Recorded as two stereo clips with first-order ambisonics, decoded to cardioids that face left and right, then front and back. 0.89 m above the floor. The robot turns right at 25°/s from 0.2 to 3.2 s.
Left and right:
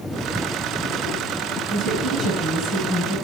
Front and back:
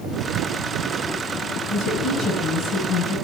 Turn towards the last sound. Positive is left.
turn(degrees=-20)